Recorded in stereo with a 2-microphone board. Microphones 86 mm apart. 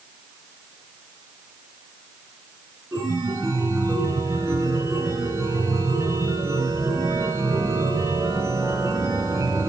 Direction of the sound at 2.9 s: 30° right (ahead or behind).